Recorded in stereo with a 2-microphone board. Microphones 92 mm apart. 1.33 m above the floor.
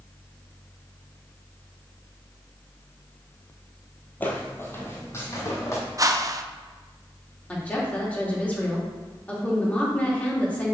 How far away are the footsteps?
About 1.5 m.